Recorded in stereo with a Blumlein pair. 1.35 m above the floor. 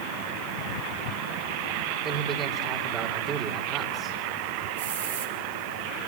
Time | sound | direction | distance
2.0 | a man speaking | 30° right | 4.5 m
4.8 | a hiss | 60° right | 4.5 m